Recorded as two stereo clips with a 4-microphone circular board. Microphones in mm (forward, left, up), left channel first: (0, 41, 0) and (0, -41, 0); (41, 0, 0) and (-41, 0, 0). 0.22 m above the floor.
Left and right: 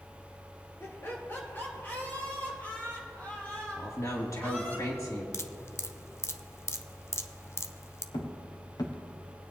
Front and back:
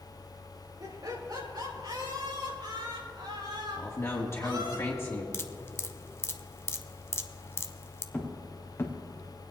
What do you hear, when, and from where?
0.8 s laughter: 145° left, 2.5 m; by 4.8 s 165° left, 6.5 m
3.8 s a man speaking: 50° left, 3 m
5.3 s dripping: 50° left, 0.6 m
8.1 s footsteps: 70° left, 3 m; by 9.5 s 30° left, 1.5 m